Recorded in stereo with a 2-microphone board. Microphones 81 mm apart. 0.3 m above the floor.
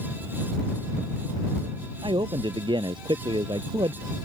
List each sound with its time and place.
2.0 s a man speaking: 80° right